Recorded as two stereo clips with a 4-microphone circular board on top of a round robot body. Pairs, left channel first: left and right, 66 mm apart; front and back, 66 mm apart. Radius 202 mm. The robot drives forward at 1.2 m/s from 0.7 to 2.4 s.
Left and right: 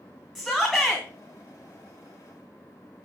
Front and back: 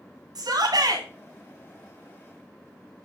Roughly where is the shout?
Behind.